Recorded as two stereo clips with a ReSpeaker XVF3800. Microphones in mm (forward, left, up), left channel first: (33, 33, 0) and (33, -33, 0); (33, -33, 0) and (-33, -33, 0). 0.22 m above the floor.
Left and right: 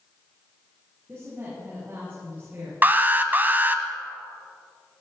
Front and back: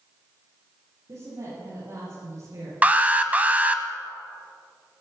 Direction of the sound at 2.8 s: 125° right.